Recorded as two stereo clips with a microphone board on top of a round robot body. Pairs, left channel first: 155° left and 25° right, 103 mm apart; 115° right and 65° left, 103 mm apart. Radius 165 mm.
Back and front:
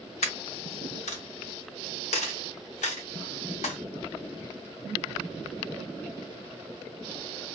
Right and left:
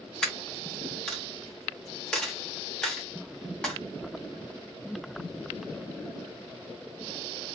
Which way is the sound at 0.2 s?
165° left.